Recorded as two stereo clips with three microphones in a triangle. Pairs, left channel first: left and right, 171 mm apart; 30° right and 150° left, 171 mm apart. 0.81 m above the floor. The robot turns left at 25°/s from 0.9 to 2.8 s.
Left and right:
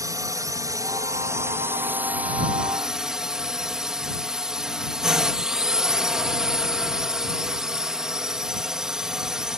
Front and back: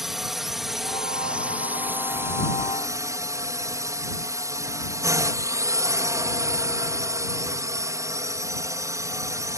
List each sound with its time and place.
0.0 s a drone: 125° right; by 9.6 s 170° right